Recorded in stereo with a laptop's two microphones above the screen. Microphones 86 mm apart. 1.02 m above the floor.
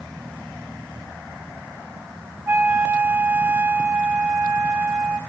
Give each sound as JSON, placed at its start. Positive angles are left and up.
{"t": 2.5, "sound": "a flute", "side_deg": -30, "distance_m": 0.8}